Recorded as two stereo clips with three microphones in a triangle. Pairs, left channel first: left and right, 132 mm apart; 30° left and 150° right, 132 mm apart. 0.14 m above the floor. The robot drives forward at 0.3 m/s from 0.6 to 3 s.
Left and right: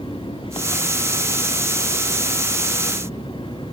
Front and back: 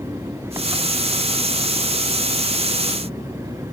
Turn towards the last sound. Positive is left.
turn(degrees=140)